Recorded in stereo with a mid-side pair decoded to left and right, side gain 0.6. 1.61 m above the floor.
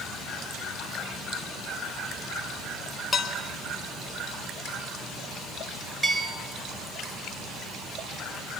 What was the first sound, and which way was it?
Dishes clattering, 30° left.